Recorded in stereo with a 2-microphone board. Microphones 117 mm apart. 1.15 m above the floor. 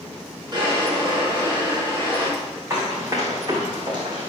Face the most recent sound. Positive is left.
turn(degrees=-45)  # may be behind; listen again after turning